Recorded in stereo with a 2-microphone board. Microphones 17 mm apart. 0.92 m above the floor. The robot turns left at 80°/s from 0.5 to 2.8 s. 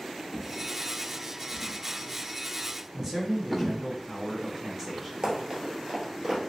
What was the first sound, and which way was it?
A drawer, centre (ahead or behind).